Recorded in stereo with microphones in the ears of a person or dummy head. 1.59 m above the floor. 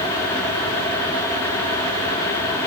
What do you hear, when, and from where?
Only background noise.